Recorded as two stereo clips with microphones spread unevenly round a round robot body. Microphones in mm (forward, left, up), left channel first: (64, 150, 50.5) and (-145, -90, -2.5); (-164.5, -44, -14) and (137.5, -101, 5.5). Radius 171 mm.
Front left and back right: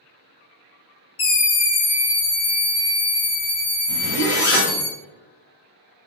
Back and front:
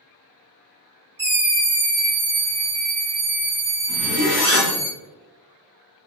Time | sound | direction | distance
1.2 | a scream | 70° left | 0.6 m
3.9 | a zipper | 50° left | 1.4 m